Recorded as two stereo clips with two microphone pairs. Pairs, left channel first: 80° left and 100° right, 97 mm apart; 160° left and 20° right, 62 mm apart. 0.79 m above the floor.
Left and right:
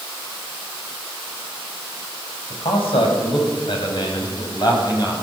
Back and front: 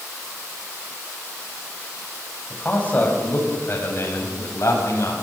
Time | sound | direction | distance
2.5 | a man speaking | 90° left | 5.5 m